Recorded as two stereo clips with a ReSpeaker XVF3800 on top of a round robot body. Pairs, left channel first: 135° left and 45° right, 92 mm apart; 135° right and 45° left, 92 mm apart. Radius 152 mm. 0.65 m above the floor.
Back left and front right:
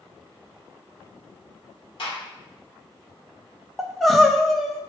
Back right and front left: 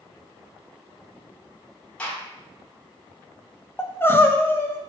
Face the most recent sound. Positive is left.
turn(degrees=-140)